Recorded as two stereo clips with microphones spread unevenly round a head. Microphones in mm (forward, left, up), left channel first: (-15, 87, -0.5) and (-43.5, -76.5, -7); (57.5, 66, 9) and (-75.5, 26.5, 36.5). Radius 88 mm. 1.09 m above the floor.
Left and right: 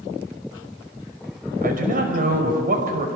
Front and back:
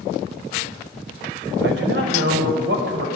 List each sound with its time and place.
1.6 s a man speaking: 135° right, 5.5 m